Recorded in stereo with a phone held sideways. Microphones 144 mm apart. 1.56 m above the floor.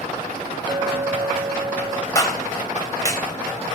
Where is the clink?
30° right (ahead or behind), 1.1 m.